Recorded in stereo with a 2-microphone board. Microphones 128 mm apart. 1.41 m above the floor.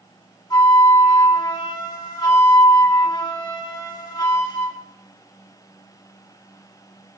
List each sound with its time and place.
0.5 s a flute: 35° left (ahead or behind), 2.0 m